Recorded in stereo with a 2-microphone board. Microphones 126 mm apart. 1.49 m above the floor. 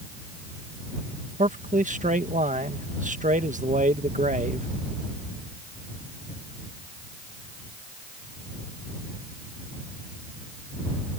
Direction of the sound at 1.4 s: 85° right.